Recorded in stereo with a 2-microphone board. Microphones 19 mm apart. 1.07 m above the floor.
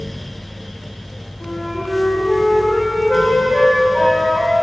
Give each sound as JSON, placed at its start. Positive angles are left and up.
{"t": 1.4, "sound": "a flute", "side_deg": 45, "distance_m": 1.7}